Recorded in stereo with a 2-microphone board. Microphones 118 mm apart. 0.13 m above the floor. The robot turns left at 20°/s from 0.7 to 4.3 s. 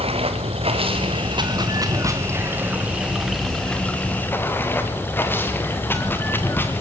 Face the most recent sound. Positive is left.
turn(degrees=160)